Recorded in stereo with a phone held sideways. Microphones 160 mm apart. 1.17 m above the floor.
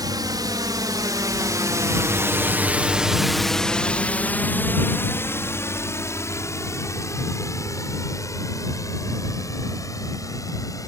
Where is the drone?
25° right (ahead or behind); by 10.9 s 20° left (ahead or behind).